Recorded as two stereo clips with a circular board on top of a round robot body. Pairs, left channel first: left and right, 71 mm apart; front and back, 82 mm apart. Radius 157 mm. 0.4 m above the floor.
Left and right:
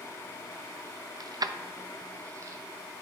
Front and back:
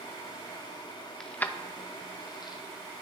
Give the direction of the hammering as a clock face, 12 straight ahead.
I don't hear hammering.